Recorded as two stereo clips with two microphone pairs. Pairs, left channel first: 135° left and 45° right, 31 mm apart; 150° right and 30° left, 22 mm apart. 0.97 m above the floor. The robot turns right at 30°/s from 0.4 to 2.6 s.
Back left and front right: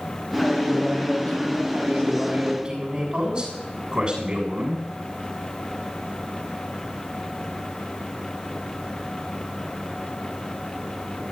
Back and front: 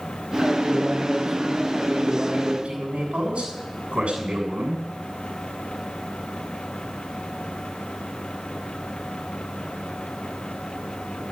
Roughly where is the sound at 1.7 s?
Ahead.